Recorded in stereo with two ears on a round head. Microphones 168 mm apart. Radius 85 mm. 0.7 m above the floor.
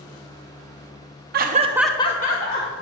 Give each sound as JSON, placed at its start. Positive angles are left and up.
{"t": 1.3, "sound": "laughter", "side_deg": -55, "distance_m": 0.8}